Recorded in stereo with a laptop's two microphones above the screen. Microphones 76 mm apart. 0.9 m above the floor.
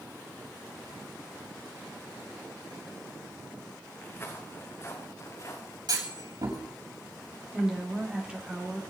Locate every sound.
4.0 s footsteps: 25° left (ahead or behind), 3.5 m; by 5.8 s 45° left (ahead or behind), 3 m
5.9 s a clunk: 65° right (ahead or behind), 7 m
7.5 s a woman speaking: 15° right (ahead or behind), 3 m